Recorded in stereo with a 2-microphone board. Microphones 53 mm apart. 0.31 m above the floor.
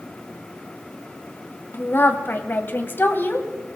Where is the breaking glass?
I don't hear breaking glass.